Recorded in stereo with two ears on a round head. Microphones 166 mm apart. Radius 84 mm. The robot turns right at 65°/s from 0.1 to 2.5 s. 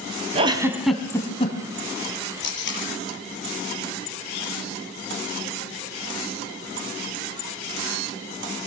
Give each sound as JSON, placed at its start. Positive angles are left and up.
{"t": 0.3, "sound": "a giggle", "side_deg": -35, "distance_m": 2.5}
{"t": 2.4, "sound": "tape being pulled", "side_deg": 65, "distance_m": 6.0}